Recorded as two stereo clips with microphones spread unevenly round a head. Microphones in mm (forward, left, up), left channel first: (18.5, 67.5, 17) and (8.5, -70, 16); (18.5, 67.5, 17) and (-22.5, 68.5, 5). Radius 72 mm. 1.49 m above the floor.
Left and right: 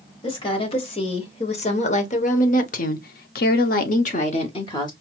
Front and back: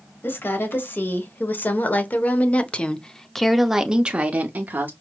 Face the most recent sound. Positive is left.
turn(degrees=145)